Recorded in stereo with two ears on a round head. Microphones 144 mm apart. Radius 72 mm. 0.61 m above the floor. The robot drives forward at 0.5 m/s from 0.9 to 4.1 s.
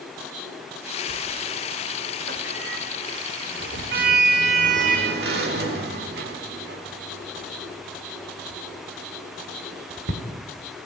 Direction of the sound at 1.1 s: 45° right (ahead or behind).